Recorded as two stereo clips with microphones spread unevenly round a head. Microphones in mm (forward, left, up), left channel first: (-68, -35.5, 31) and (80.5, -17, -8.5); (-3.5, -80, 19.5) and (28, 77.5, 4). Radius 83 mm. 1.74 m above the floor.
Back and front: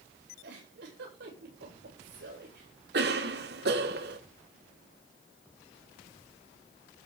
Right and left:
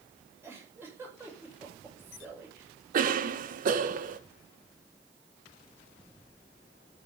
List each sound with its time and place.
0.4 s a giggle: straight ahead, 9 m
2.9 s a cough: 40° left, 1.8 m